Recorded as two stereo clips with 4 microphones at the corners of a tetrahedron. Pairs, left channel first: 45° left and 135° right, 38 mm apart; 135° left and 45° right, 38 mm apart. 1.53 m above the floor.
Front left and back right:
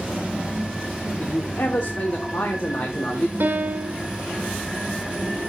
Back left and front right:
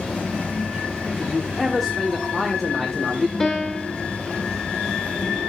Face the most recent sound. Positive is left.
turn(degrees=-155)